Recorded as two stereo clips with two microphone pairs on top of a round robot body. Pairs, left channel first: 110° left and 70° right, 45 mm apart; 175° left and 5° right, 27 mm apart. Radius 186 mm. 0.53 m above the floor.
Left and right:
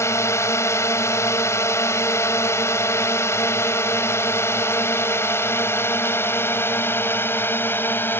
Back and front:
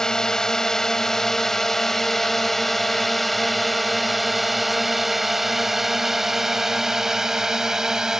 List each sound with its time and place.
0.0 s a drone: 110° left; by 8.2 s 65° left